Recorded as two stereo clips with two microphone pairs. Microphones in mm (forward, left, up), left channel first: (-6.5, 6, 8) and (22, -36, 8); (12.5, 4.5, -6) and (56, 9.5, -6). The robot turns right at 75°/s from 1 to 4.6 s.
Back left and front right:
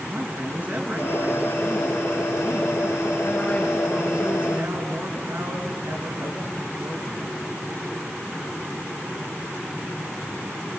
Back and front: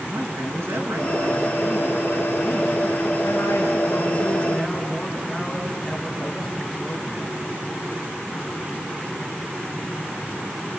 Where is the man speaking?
Straight ahead, 5 m; by 7.4 s 90° right, 5 m.